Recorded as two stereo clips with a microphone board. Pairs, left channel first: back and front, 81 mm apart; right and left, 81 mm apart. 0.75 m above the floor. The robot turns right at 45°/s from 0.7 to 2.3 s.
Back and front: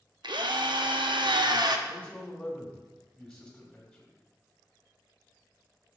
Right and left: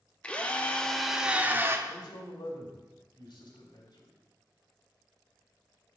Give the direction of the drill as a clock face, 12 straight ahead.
12 o'clock.